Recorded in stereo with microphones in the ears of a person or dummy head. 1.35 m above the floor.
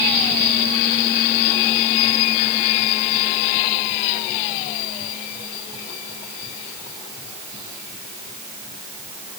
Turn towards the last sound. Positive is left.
No sound to turn to.